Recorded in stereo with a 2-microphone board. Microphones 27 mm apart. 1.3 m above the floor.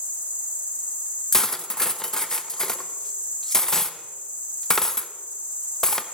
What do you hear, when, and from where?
0.0 s an insect: 60° right (ahead or behind), 1.4 m
1.3 s cutlery clinking: 15° left (ahead or behind), 0.5 m